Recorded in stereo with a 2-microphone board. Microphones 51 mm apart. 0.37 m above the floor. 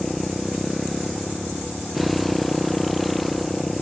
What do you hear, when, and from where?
0.0 s a motorcycle: centre (ahead or behind)